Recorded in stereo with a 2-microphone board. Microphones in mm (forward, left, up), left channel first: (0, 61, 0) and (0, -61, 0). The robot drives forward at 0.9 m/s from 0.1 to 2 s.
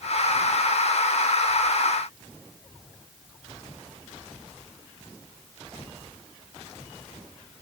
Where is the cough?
No cough in this recording.